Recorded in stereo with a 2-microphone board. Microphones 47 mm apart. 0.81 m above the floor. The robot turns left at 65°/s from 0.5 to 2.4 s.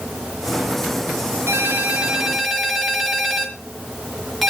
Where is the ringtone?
120° right, 4.5 m; by 4.5 s straight behind, 4.5 m.